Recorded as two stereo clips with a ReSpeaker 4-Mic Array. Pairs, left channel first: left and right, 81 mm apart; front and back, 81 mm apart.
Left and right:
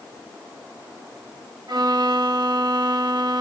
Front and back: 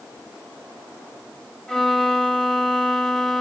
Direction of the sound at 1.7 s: 80° right.